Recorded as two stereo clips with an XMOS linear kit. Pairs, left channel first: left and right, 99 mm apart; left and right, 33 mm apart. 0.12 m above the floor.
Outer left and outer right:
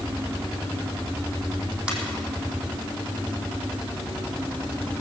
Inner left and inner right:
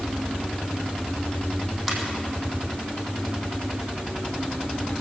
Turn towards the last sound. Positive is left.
turn(degrees=-10)  # may be behind; listen again after turning